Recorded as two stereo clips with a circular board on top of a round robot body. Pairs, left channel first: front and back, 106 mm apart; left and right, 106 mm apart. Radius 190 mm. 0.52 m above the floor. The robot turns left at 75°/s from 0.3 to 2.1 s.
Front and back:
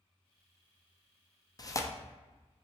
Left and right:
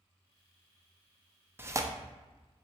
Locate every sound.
1.6 s tearing paper: 30° right, 0.6 m; by 1.9 s 55° right, 0.6 m